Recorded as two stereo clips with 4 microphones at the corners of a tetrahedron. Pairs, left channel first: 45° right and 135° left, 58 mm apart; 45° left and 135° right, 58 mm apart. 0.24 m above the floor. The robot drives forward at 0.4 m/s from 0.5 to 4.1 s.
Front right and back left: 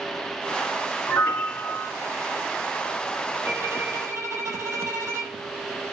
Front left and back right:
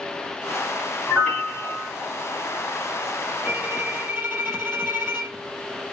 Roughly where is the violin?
Behind.